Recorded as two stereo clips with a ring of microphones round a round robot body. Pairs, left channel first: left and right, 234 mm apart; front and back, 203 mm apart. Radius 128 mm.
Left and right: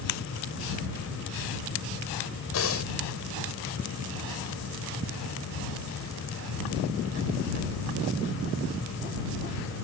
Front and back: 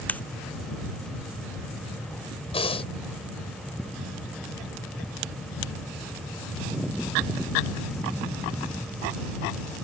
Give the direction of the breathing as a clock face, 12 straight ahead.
10 o'clock.